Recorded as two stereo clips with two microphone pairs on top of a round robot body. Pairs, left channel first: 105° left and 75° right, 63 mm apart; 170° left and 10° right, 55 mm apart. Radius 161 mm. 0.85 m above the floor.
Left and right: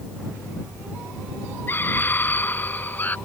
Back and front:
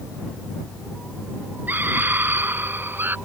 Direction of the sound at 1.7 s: 45° left.